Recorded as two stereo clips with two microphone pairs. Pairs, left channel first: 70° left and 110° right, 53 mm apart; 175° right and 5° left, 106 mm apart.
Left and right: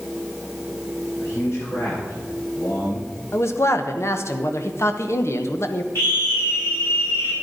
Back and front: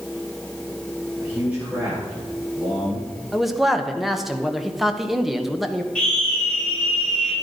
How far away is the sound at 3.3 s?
About 1.2 m.